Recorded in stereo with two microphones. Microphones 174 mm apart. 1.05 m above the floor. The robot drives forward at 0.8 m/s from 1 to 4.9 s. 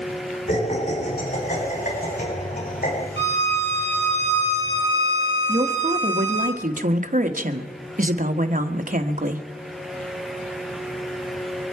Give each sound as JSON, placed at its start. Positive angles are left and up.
{"t": 0.5, "sound": "laughter", "side_deg": 50, "distance_m": 8.0}
{"t": 3.2, "sound": "a violin", "side_deg": 75, "distance_m": 2.0}
{"t": 5.5, "sound": "a woman speaking", "side_deg": -50, "distance_m": 1.2}